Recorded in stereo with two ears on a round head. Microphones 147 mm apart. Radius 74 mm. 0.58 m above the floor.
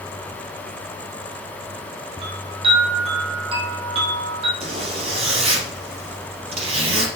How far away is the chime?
About 3 m.